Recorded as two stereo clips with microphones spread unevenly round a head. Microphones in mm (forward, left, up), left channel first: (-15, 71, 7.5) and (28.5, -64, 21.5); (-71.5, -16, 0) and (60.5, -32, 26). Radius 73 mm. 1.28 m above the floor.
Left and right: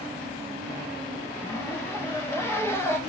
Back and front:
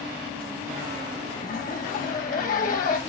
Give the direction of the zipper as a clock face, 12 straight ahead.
6 o'clock.